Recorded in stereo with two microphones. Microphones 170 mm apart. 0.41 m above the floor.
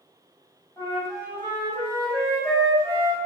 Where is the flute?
20° left (ahead or behind), 2 m.